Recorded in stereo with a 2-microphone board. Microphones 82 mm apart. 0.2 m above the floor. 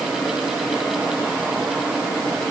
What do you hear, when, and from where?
Only background noise.